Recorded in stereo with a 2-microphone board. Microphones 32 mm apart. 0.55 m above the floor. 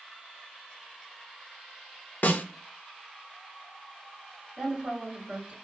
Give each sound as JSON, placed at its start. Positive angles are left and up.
{"t": 2.2, "sound": "a snare drum", "side_deg": 70, "distance_m": 0.5}
{"t": 4.6, "sound": "a woman speaking", "side_deg": -45, "distance_m": 1.8}